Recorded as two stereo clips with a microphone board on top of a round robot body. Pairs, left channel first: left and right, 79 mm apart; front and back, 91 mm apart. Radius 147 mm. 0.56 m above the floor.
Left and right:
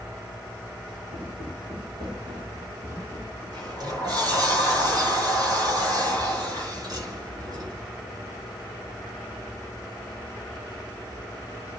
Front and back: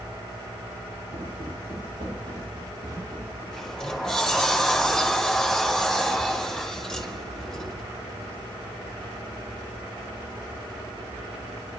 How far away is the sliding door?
About 1.8 m.